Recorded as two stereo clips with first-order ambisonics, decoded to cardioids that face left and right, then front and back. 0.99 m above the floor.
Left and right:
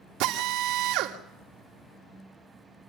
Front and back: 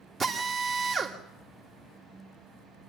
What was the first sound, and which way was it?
A drill, 115° right.